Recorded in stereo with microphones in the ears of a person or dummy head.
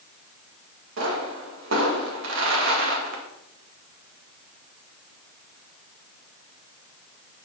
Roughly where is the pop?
Right.